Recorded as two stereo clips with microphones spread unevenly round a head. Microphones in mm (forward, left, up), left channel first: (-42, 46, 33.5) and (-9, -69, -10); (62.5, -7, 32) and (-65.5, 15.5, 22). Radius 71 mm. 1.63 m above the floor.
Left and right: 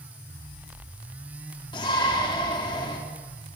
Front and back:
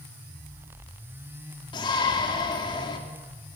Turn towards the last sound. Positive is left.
turn(degrees=45)